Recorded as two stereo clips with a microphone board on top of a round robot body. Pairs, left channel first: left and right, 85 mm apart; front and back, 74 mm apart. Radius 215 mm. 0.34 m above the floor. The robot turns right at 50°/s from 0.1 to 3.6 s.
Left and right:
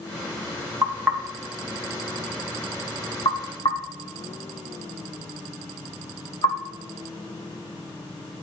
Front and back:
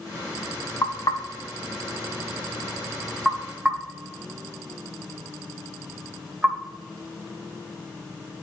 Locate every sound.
0.8 s knocking: 40° right, 2.5 m; by 6.6 s 100° left, 2.5 m